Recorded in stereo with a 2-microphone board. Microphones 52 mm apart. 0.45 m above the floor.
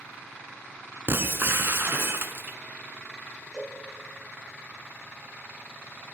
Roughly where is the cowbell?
Centre.